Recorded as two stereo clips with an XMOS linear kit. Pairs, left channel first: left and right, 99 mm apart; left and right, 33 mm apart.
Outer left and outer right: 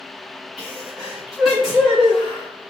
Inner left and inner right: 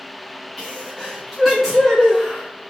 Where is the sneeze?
Centre (ahead or behind), 1.4 m.